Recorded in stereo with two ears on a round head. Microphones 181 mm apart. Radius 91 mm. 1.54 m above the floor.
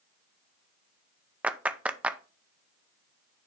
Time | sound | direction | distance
1.4 | a clap | 5° right (ahead or behind) | 0.5 m